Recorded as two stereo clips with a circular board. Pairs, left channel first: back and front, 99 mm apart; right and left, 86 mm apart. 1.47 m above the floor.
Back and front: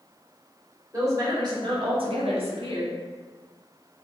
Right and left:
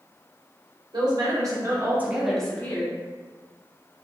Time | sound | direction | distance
0.9 | a woman speaking | 55° left | 1.1 m